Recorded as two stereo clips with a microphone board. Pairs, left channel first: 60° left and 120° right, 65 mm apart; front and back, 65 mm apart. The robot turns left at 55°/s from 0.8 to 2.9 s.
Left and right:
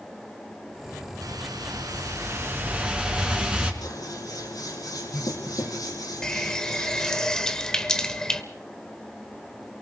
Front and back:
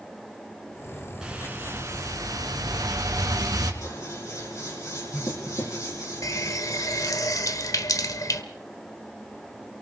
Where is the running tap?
20° right, 1.2 m.